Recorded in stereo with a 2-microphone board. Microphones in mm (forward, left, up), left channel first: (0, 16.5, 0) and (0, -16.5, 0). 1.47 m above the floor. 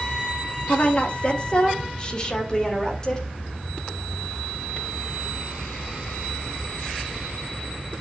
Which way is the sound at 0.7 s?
45° left (ahead or behind).